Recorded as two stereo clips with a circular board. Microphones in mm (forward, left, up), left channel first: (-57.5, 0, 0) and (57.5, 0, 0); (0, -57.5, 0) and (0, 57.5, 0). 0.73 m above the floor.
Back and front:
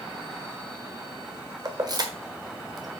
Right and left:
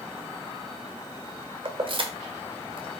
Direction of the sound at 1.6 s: 50° left.